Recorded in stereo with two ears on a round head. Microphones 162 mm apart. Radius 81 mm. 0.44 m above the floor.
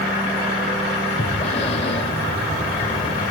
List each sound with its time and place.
1.2 s breathing: 35° left (ahead or behind), 0.7 m